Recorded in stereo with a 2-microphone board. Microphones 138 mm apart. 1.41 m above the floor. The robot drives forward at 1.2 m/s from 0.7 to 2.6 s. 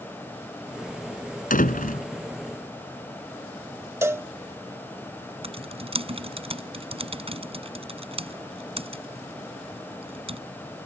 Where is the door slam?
80° left.